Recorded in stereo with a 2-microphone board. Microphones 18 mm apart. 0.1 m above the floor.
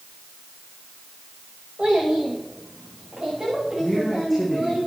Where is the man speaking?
Centre (ahead or behind), 5 m.